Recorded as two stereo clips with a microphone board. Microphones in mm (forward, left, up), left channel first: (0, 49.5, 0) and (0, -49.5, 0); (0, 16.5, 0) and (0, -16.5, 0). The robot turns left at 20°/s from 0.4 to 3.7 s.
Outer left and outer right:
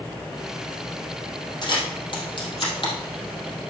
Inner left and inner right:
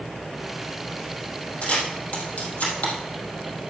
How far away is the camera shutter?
About 3 m.